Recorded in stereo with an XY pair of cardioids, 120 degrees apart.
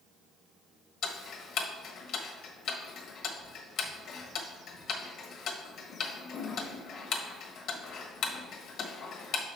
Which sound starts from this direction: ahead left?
Ticking, at 1.0 s.